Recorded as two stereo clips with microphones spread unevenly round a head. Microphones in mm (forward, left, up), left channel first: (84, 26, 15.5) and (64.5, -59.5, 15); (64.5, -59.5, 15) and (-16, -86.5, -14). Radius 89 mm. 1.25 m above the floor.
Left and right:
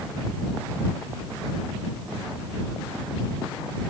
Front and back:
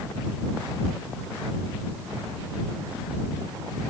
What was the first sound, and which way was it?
Only background noise.